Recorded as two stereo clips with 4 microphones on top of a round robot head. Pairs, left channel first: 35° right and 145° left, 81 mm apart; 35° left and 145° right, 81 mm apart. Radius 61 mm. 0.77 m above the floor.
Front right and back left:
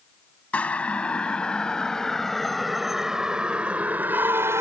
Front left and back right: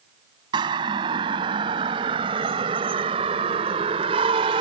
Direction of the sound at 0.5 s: 110° right.